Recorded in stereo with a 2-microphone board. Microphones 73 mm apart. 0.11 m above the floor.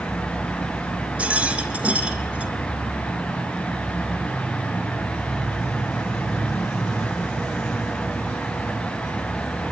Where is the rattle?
20° right (ahead or behind), 2.5 m.